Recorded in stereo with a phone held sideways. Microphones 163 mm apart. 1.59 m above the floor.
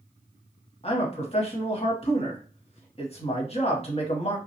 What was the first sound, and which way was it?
A man speaking, 40° left (ahead or behind).